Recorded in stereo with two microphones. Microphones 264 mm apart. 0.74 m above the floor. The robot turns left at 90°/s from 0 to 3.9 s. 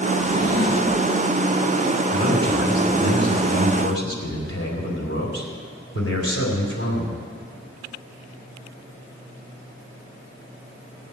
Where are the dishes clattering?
I don't hear dishes clattering.